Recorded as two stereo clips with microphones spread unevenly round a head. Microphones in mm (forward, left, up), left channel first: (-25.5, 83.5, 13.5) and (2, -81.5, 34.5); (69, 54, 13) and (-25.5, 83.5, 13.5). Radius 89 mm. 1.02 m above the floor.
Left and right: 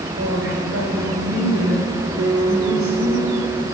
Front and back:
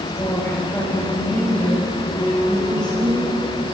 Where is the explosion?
No explosion in this recording.